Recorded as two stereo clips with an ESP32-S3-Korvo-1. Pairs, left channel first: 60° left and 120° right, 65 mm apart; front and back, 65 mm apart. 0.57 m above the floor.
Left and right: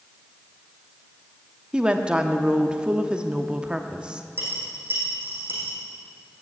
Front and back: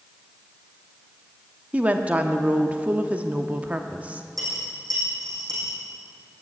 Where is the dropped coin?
170° right, 6.5 m.